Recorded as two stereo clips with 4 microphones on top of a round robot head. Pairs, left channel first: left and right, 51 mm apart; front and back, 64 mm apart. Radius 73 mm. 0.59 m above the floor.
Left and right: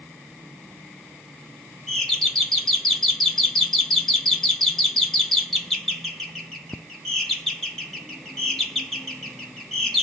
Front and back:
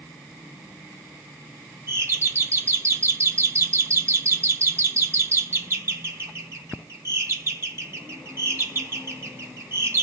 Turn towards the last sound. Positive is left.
turn(degrees=170)